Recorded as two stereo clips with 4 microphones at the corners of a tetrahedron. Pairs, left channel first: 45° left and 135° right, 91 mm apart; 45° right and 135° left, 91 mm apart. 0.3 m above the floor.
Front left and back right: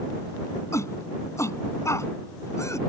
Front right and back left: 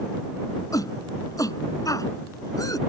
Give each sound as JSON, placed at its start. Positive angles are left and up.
{"t": 0.7, "sound": "a shout", "azimuth_deg": -5}